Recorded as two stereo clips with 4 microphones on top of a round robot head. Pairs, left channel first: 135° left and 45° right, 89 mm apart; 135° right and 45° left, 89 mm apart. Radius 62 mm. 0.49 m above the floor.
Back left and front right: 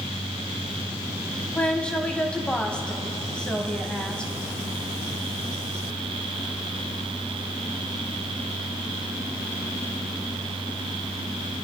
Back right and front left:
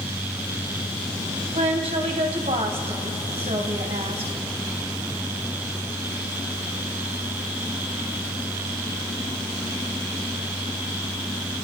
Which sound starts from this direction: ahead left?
A woman speaking, at 1.5 s.